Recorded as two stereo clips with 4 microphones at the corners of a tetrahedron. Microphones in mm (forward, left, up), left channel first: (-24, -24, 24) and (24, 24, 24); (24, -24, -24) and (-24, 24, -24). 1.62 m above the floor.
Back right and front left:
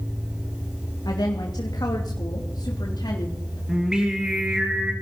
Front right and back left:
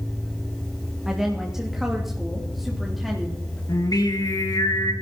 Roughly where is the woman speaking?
Behind right.